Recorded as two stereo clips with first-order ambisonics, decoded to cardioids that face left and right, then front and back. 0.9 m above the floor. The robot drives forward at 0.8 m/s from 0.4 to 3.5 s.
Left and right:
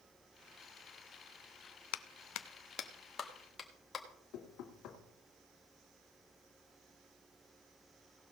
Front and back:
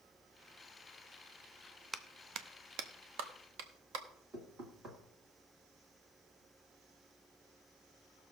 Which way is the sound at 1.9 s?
95° left.